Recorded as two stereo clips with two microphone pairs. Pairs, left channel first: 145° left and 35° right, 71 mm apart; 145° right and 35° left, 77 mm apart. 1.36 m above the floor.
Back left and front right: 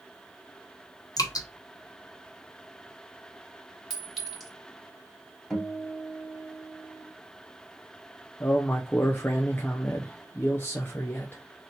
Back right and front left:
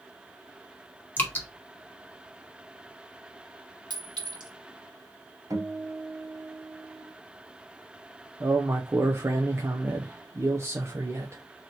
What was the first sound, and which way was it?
Dripping, 155° left.